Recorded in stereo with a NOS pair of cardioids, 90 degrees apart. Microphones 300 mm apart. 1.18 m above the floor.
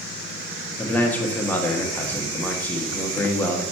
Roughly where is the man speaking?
Ahead.